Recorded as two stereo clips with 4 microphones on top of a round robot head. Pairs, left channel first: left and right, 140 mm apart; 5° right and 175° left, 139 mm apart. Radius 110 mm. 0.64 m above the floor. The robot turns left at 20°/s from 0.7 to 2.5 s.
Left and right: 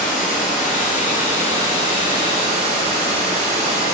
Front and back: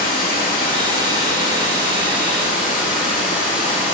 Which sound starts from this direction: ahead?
Running water, at 0.0 s.